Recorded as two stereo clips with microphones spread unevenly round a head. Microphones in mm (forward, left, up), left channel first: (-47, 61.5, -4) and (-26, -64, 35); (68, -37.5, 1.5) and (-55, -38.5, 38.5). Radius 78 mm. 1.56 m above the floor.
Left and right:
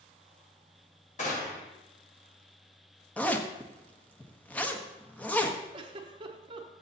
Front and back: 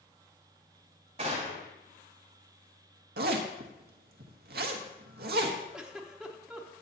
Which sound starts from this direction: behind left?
A gunshot, at 1.2 s.